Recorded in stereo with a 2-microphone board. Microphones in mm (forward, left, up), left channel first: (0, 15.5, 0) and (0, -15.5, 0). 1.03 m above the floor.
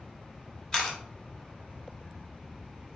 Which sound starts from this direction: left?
A camera shutter, at 0.7 s.